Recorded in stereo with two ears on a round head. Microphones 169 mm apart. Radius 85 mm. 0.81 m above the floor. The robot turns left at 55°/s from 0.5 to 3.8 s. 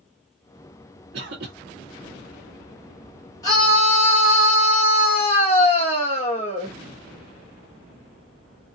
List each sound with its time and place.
1.1 s a cough: 60° right (ahead or behind), 1.6 m
3.4 s a scream: 20° left (ahead or behind), 1.2 m; by 6.7 s 30° left (ahead or behind), 1.2 m